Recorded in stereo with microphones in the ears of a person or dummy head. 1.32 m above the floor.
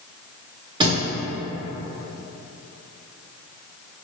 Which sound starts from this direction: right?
A thud, at 0.8 s.